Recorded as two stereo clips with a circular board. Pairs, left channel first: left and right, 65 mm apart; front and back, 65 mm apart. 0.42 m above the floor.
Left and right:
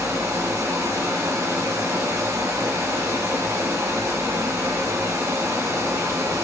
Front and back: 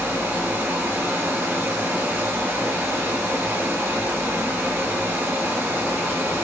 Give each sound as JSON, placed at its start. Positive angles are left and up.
{"t": 0.0, "sound": "running water", "azimuth_deg": -130, "distance_m": 1.1}